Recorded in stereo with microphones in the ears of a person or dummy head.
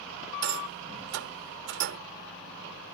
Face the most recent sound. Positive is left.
turn(degrees=-75)  # may be behind; listen again after turning